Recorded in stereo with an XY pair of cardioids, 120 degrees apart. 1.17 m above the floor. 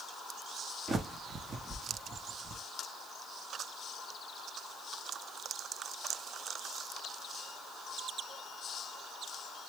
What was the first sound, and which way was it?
A bird, 30° right.